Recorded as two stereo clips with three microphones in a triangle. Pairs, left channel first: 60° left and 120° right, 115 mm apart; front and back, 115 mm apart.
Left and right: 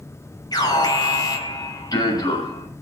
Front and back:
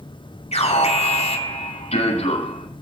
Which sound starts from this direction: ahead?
An alarm, at 0.5 s.